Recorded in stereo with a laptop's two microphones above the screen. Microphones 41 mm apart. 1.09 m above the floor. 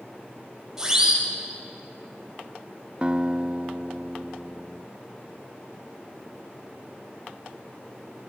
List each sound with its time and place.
0.8 s a siren: 15° right (ahead or behind), 9 m
3.0 s a guitar: 25° right (ahead or behind), 0.5 m